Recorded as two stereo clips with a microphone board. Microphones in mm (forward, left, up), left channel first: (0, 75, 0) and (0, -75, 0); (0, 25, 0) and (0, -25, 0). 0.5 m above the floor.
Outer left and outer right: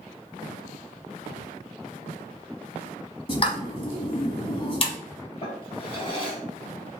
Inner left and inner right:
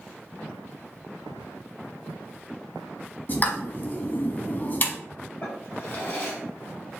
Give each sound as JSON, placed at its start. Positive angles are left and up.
{"t": 3.3, "sound": "a pop", "side_deg": 40, "distance_m": 1.0}
{"t": 5.4, "sound": "a drawer", "side_deg": 40, "distance_m": 2.5}